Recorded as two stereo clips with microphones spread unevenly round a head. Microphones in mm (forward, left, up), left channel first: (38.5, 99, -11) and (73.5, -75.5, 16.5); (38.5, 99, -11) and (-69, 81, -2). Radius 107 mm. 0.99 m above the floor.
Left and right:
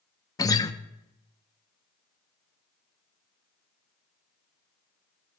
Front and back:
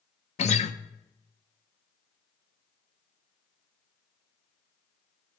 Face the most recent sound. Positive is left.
turn(degrees=30)